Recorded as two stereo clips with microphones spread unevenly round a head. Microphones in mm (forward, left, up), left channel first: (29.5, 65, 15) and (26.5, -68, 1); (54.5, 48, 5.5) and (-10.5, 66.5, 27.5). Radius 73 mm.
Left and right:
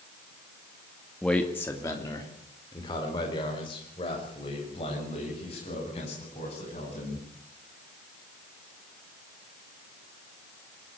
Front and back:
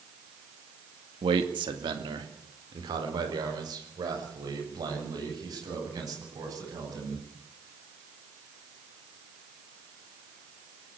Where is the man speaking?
175° left, 2 m; by 7.2 s 140° left, 10.5 m.